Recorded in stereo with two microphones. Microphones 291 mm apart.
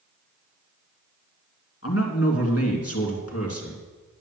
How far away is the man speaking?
About 2.5 m.